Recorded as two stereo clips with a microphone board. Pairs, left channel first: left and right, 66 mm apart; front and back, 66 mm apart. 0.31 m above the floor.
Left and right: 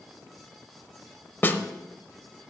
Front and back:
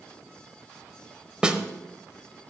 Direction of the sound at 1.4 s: 115° left.